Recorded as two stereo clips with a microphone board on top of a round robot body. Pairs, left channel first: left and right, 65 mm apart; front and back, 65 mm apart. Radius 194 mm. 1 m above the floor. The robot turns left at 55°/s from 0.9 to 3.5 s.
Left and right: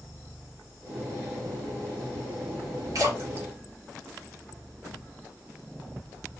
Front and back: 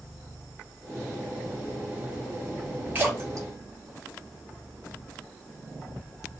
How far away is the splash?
About 2.5 m.